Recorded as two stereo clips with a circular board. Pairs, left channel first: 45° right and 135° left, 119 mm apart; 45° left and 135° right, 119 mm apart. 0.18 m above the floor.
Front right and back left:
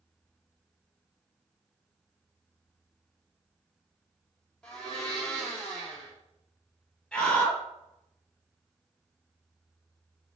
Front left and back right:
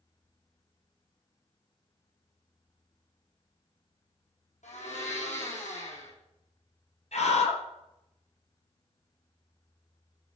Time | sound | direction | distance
4.6 | a blender | 40° left | 6 m
7.1 | a scream | 35° left | 5 m